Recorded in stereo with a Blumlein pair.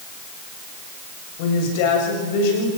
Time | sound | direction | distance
1.4 | a woman speaking | 50° left | 7 m